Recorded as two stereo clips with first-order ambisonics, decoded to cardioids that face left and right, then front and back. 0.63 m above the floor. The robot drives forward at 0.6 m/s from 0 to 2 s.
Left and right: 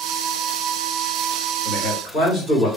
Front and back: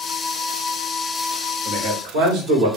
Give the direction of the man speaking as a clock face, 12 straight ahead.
7 o'clock.